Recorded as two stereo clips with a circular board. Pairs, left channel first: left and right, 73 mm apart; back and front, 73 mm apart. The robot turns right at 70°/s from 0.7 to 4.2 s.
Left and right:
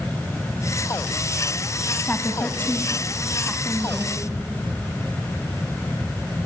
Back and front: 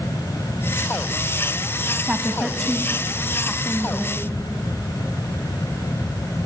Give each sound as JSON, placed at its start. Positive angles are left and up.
{"t": 2.0, "sound": "a woman speaking", "azimuth_deg": 55, "distance_m": 1.1}